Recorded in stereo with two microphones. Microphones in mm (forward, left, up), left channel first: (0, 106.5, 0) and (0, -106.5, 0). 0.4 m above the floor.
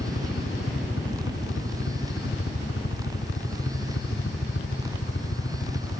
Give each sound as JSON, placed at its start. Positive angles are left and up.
{"t": 0.0, "sound": "a helicopter", "side_deg": 70}